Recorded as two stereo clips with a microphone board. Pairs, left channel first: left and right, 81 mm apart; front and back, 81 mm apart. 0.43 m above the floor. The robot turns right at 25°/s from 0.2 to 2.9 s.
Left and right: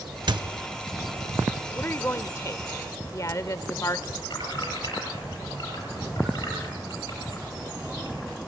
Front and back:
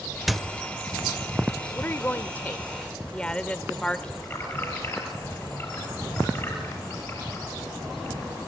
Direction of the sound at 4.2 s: 60° left.